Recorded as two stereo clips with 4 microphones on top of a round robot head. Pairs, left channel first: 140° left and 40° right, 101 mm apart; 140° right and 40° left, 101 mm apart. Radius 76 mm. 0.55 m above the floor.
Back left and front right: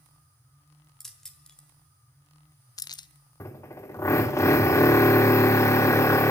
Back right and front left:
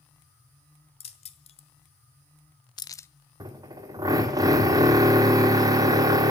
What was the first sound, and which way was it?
Keys jangling, 130° right.